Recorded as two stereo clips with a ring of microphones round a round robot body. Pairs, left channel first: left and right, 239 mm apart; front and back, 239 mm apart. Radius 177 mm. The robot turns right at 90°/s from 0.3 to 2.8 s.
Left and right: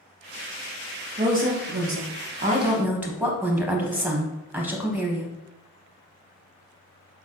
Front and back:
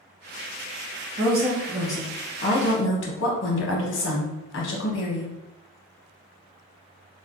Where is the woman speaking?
155° right, 0.9 m; by 5.3 s 10° right, 0.9 m.